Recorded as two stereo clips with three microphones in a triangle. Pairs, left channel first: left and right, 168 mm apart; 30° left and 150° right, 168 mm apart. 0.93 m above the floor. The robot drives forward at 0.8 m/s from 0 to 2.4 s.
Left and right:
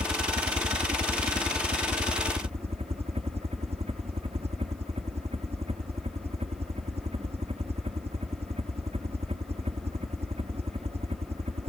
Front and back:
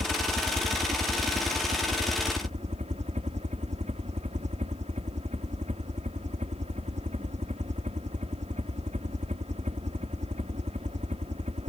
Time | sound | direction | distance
0.0 | a helicopter | 115° right | ?